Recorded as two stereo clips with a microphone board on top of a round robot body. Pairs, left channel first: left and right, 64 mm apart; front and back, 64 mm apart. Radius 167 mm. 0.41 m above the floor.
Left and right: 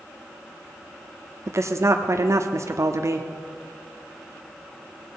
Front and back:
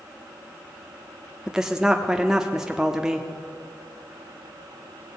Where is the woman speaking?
100° right, 1.0 m.